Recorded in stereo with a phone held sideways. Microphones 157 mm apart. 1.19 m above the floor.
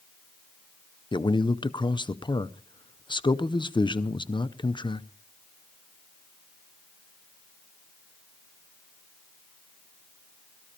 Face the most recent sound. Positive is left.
turn(degrees=30)  # may be behind; listen again after turning